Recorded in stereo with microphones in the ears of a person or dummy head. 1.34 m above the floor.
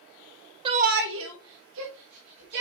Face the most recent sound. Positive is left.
turn(degrees=-50)  # may be behind; listen again after turning